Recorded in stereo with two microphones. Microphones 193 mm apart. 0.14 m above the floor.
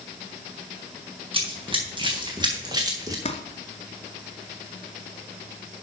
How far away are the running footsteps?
About 4 m.